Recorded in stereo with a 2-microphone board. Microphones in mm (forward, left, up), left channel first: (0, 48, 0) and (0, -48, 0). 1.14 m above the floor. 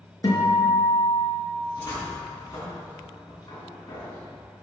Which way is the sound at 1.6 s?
40° left (ahead or behind).